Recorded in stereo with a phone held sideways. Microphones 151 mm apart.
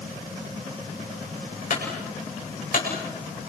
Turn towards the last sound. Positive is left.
turn(degrees=65)  # may be behind; listen again after turning